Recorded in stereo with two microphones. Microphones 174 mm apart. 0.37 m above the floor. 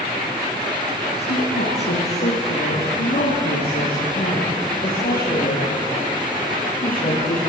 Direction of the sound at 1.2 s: 80° left.